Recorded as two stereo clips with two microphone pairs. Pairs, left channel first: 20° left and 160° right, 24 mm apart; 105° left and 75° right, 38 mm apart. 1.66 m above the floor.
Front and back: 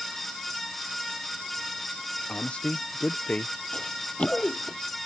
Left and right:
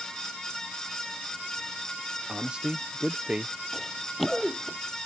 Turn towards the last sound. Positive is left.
turn(degrees=25)